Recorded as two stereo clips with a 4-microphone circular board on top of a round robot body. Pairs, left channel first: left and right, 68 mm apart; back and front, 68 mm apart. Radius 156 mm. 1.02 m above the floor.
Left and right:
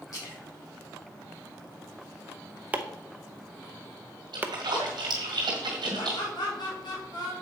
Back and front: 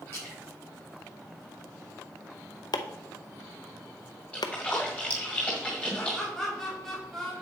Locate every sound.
0.1 s a splash: 125° left, 5 m
2.7 s chopping: 160° right, 0.8 m
4.3 s a splash: 110° right, 1.9 m
6.0 s laughter: 95° left, 2.5 m